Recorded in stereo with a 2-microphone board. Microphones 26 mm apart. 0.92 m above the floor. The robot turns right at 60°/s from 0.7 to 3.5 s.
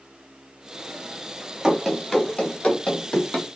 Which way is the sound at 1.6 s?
30° right (ahead or behind).